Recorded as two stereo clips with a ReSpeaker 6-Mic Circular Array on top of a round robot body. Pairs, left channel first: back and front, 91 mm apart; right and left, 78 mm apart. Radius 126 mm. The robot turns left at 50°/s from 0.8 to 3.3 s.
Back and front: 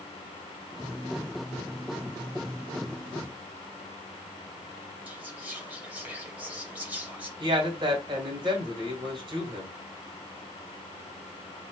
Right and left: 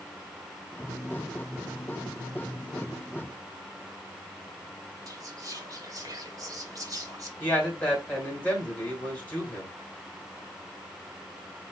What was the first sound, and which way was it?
Whispering, 70° left.